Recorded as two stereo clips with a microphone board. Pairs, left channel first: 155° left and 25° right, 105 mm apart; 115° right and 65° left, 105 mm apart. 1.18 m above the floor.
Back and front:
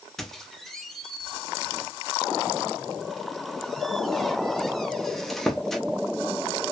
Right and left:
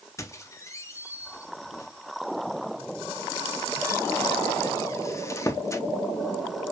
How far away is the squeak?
About 0.5 m.